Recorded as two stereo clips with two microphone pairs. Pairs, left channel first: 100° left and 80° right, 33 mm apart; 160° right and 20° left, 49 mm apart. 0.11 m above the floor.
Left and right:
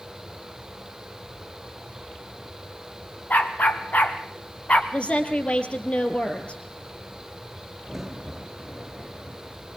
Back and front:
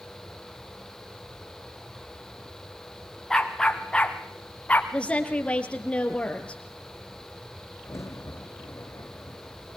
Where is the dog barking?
120° left, 3 m; by 4.8 s 135° left, 2.5 m.